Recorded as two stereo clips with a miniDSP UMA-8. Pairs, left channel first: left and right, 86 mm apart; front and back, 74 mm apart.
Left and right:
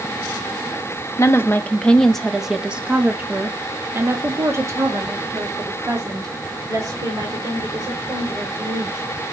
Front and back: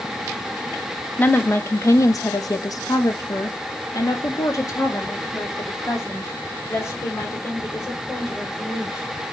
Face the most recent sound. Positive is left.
turn(degrees=-50)